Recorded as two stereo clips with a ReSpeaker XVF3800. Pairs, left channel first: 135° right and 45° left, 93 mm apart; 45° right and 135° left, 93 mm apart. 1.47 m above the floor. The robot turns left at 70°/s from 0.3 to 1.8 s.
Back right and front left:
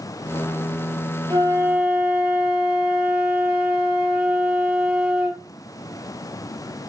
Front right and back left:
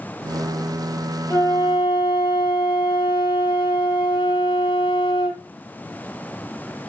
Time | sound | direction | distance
1.3 | a flute | 15° left | 2.0 m